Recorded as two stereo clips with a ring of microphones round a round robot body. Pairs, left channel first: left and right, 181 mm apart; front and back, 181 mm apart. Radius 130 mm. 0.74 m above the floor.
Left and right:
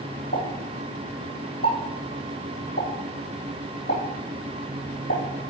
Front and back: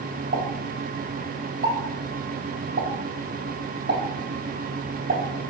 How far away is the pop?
About 3.5 m.